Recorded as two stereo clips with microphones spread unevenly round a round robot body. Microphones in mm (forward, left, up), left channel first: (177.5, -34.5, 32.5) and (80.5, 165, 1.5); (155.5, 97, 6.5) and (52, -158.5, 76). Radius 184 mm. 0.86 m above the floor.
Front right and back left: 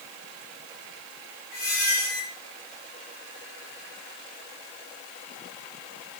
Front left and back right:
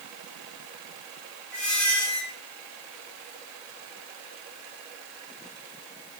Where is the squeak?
20° right, 7.5 m.